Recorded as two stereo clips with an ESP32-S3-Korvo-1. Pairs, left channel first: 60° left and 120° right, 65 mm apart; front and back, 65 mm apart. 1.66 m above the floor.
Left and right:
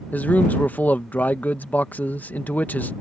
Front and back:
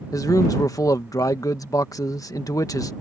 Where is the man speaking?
Straight ahead.